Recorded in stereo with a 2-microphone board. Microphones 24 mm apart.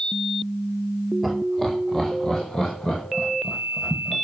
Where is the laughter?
Centre (ahead or behind), 3 m; by 4.2 s 40° left (ahead or behind), 5 m.